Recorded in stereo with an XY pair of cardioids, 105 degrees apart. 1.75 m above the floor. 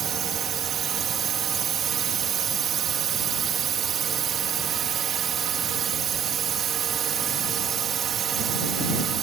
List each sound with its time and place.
0.0 s a drone: 55° right